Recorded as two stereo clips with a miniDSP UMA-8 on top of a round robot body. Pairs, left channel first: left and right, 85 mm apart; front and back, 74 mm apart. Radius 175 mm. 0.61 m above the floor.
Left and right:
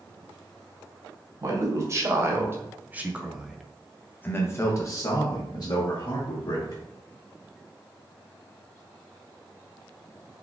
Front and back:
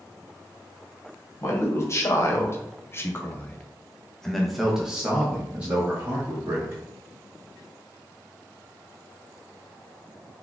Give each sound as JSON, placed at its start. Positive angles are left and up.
{"t": 1.4, "sound": "a man speaking", "azimuth_deg": -45, "distance_m": 1.5}